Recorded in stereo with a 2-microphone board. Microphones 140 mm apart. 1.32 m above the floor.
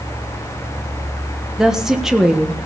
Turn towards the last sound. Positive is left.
turn(degrees=-5)  # may be behind; listen again after turning